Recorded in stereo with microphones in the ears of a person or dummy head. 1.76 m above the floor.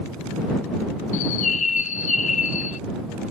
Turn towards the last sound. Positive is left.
turn(degrees=45)  # may be behind; listen again after turning